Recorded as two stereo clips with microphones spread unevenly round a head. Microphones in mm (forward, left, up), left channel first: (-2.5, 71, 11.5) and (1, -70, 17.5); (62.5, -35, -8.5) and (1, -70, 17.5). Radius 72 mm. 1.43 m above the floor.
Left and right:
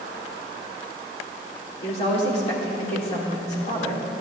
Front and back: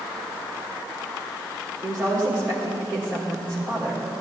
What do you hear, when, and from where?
1.8 s a woman speaking: 135° left, 3.5 m